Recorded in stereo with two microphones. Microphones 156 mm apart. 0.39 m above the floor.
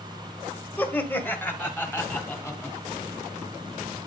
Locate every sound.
0.8 s laughter: 10° left (ahead or behind), 1.4 m; by 2.8 s 15° left (ahead or behind), 2.5 m